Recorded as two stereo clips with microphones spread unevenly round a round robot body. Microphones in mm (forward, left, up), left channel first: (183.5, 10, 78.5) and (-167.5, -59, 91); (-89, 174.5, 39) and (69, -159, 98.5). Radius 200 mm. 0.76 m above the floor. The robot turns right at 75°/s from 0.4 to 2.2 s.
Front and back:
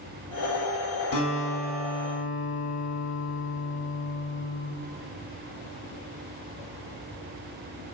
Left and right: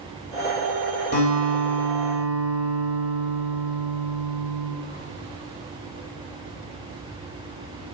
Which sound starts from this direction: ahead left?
A guitar, at 1.1 s.